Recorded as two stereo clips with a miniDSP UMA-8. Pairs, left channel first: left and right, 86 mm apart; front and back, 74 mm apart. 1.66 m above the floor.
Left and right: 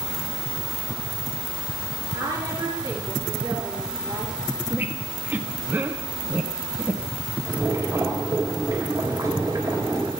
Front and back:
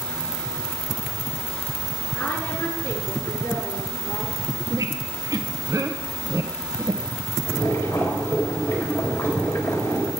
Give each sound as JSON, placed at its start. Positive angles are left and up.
{"t": 2.1, "sound": "a woman speaking", "azimuth_deg": -25, "distance_m": 4.5}
{"t": 4.7, "sound": "a squeak", "azimuth_deg": -155, "distance_m": 0.9}
{"t": 7.5, "sound": "boiling", "azimuth_deg": -40, "distance_m": 4.0}